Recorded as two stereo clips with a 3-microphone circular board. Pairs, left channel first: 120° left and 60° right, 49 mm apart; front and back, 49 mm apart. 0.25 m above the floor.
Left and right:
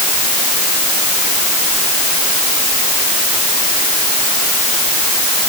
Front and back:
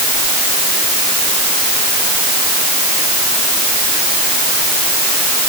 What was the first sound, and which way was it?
Only background noise.